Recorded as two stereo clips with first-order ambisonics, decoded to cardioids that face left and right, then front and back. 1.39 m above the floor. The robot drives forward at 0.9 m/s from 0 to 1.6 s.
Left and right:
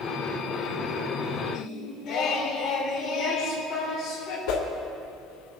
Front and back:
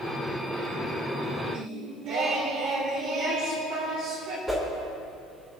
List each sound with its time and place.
1.5 s singing: 140° left, 3 m; by 4.4 s 145° left, 3.5 m
4.5 s a whoosh: 100° left, 2.5 m